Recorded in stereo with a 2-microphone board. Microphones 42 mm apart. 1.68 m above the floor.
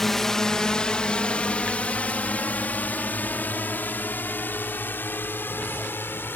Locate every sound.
0.0 s a drone: 5° left (ahead or behind); by 6.4 s 55° left (ahead or behind)